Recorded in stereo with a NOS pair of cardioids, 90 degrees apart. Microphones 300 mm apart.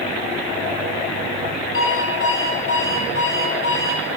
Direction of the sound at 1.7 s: 45° left.